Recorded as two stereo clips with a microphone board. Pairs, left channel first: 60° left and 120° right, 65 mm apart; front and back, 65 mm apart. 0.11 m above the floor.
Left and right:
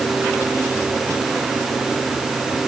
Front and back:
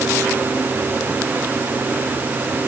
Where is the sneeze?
I don't hear a sneeze.